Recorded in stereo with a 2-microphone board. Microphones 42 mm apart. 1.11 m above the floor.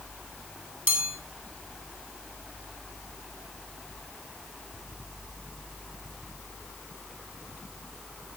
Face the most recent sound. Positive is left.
turn(degrees=-50)  # may be behind; listen again after turning